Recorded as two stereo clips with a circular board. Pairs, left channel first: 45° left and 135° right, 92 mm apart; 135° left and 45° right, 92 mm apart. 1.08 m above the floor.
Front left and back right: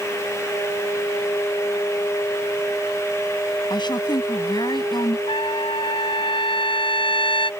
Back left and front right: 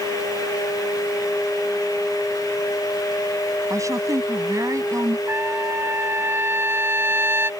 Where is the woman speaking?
10° left.